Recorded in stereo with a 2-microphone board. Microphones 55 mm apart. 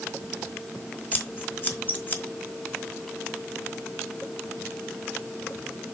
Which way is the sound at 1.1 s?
35° left (ahead or behind).